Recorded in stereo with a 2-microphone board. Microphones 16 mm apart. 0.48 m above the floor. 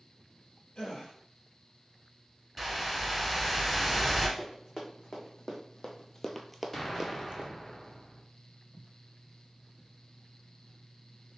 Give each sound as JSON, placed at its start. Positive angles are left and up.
{"t": 0.8, "sound": "a gasp", "side_deg": 65, "distance_m": 2.5}
{"t": 2.6, "sound": "a whoosh", "side_deg": -5, "distance_m": 1.1}
{"t": 4.4, "sound": "running footsteps", "side_deg": 45, "distance_m": 2.0}
{"t": 6.7, "sound": "an explosion", "side_deg": 25, "distance_m": 0.8}